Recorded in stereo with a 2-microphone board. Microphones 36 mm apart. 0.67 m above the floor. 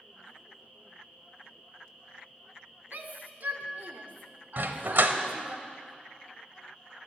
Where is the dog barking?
65° right (ahead or behind), 0.9 m.